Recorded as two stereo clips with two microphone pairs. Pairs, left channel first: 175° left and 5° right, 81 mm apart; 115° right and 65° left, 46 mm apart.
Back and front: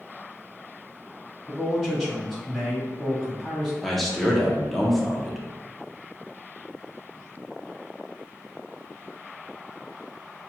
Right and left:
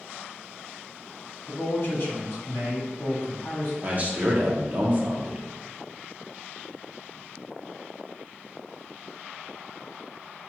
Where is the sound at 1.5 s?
90° right, 1.9 m.